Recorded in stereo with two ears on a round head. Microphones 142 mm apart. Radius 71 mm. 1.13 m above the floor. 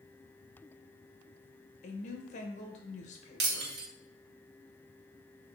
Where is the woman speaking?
50° left (ahead or behind), 1.1 m.